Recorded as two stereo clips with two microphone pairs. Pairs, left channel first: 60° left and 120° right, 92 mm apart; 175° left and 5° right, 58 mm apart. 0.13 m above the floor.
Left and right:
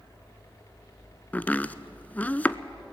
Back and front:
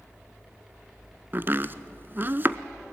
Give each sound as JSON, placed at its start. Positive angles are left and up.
{"t": 1.3, "sound": "chopping", "azimuth_deg": 0, "distance_m": 0.5}